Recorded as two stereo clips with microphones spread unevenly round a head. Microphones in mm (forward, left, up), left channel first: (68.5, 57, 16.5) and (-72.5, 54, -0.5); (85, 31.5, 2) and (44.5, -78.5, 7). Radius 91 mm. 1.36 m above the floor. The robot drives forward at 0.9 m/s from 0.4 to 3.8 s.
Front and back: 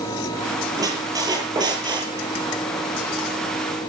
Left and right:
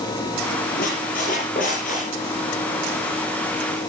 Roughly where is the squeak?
Behind left.